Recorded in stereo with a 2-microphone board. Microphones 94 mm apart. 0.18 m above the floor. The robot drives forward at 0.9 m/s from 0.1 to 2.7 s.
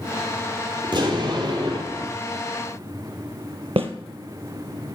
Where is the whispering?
I don't hear whispering.